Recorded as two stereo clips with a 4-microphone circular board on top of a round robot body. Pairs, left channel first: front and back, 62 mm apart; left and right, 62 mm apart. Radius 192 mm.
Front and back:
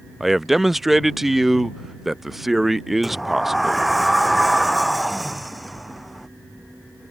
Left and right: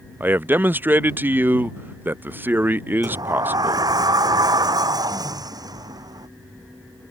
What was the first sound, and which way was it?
A man speaking, 95° right.